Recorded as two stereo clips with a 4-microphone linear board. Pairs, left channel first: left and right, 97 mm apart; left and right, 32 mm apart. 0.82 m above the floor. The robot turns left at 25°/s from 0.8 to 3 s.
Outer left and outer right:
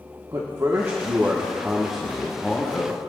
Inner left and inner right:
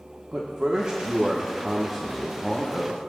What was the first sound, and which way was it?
A man speaking, 145° right.